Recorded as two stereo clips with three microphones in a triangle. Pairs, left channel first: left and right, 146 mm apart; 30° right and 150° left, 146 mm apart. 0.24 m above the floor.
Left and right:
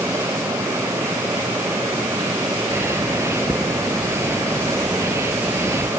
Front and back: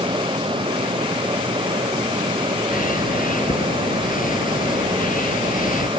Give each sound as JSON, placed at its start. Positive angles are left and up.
{"t": 2.7, "sound": "a bird", "azimuth_deg": -20}